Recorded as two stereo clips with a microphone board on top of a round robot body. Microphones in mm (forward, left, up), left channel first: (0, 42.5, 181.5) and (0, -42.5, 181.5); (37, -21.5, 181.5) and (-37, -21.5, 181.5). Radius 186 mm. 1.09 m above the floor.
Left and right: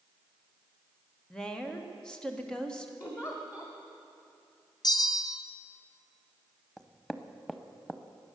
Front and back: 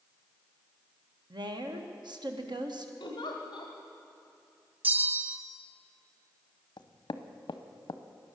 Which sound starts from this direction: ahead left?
A giggle, at 3.0 s.